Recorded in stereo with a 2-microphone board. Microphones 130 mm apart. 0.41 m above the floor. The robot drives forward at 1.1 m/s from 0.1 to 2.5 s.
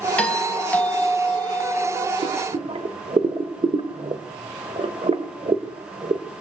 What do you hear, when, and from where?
0.2 s a doorbell: 10° left (ahead or behind), 4 m; by 2.1 s 15° left (ahead or behind), 2.5 m
2.2 s boiling: 45° right (ahead or behind), 1.6 m; by 6.2 s 50° right (ahead or behind), 1.5 m